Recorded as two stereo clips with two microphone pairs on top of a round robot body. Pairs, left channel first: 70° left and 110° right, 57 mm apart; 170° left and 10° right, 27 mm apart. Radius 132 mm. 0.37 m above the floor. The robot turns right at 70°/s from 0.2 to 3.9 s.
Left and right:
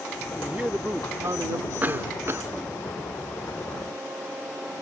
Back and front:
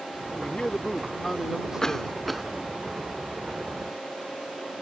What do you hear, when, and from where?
0.4 s a man speaking: 170° left; by 2.2 s 60° right
1.8 s a cough: 150° right; by 2.5 s 105° right